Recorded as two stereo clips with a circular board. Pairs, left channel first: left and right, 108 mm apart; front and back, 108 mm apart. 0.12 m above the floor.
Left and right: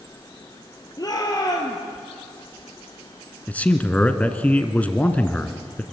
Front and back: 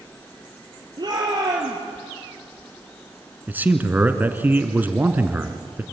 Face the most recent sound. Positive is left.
turn(degrees=145)